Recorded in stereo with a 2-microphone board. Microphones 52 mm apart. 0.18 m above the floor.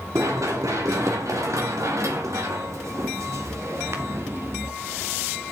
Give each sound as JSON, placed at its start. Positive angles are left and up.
{"t": 0.1, "sound": "running footsteps", "side_deg": -80, "distance_m": 5.0}